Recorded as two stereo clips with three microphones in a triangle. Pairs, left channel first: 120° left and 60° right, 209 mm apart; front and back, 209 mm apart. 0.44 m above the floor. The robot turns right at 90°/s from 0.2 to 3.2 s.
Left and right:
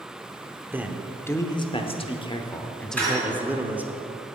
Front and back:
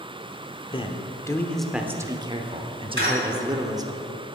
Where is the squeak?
160° right, 3 m; by 3.6 s 135° right, 3 m.